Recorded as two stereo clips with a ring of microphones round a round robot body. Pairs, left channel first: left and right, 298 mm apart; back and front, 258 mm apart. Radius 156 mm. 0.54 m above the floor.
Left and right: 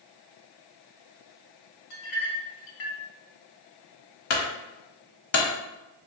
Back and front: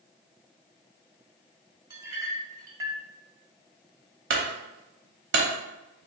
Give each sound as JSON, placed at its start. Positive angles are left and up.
{"t": 1.9, "sound": "a clink", "azimuth_deg": 75, "distance_m": 1.1}
{"t": 4.3, "sound": "a clunk", "azimuth_deg": 45, "distance_m": 1.1}